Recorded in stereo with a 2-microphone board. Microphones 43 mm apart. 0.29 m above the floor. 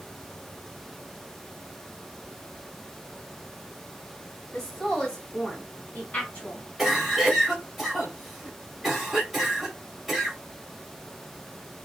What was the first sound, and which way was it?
A woman speaking, 10° left (ahead or behind).